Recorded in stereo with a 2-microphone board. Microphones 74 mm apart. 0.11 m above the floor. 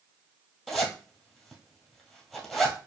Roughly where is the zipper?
Centre.